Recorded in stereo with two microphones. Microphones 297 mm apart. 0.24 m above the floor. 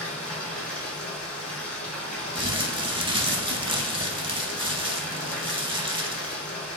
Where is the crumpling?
15° right (ahead or behind), 0.6 m.